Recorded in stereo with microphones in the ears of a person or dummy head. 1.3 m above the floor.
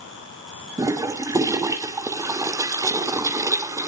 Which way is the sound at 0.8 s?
15° right (ahead or behind).